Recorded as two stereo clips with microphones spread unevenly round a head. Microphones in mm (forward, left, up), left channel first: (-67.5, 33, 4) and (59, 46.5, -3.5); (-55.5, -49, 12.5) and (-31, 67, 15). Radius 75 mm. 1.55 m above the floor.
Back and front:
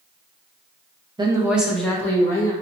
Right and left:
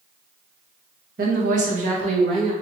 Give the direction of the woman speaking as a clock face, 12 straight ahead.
10 o'clock.